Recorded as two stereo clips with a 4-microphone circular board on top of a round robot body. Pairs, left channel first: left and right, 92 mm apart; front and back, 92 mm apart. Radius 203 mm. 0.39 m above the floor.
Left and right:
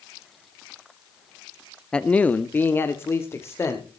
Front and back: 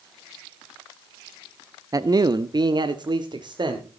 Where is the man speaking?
165° left, 0.9 m; by 4.0 s 150° left, 2.0 m.